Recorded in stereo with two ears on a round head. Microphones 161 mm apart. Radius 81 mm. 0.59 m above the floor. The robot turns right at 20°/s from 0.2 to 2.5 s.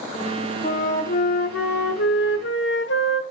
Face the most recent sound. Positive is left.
turn(degrees=80)